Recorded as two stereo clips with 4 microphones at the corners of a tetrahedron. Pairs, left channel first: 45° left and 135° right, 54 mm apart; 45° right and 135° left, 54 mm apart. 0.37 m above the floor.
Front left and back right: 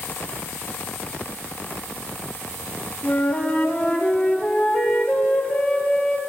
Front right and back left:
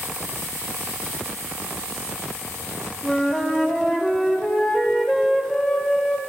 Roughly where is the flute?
Ahead.